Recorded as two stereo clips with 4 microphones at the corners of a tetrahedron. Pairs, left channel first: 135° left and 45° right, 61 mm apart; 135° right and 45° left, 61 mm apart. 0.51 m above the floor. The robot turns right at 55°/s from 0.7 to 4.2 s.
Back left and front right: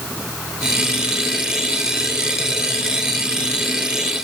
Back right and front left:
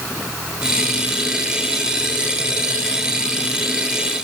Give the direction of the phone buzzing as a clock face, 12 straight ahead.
No phone buzzing in this recording.